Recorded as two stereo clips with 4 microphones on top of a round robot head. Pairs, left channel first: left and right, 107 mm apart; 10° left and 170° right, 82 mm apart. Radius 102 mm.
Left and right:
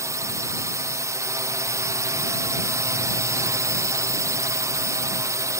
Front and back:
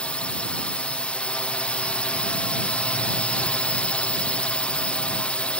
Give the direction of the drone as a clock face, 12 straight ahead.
2 o'clock.